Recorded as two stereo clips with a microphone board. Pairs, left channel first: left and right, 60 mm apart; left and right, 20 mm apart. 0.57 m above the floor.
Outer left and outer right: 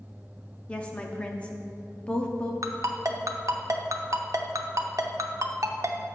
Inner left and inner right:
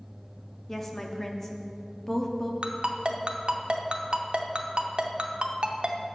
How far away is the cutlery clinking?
No cutlery clinking in this recording.